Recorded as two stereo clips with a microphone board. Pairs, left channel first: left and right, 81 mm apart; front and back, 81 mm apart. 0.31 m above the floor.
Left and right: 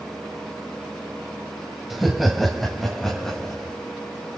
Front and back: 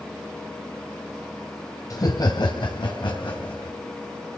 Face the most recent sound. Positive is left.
turn(degrees=5)